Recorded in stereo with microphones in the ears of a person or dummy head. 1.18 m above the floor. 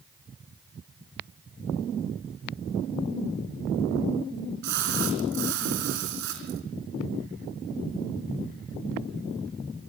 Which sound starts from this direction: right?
A splash, at 4.6 s.